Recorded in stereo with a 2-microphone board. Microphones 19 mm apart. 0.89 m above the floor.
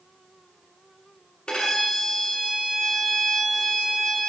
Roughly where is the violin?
Left.